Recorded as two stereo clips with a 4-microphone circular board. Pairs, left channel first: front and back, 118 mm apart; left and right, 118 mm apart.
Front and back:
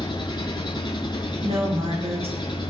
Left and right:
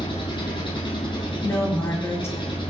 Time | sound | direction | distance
0.0 | an engine running | 50° left | 6.5 m
1.4 | a woman speaking | 155° left | 5 m